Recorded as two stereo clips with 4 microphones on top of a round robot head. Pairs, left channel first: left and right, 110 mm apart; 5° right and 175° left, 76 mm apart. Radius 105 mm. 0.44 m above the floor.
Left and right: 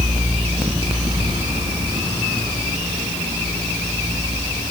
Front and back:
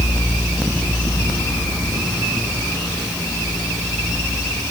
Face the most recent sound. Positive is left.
No sound to turn to.